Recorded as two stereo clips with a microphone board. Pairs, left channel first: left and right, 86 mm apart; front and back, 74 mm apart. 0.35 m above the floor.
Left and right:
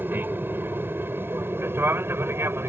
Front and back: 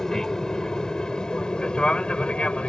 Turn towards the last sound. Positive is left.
turn(degrees=-60)